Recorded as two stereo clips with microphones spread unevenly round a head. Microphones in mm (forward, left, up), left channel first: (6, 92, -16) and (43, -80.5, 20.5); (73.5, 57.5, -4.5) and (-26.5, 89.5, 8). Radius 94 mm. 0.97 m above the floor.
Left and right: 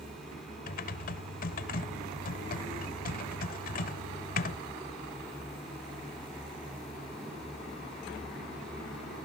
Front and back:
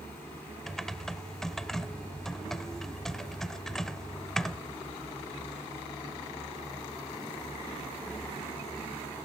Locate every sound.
0.7 s typing on a keyboard: 75° left, 0.9 m